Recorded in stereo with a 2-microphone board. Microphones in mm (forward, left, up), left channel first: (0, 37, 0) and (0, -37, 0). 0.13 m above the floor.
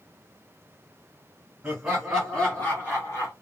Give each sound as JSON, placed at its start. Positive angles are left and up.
{"t": 1.6, "sound": "laughter", "side_deg": -10, "distance_m": 1.5}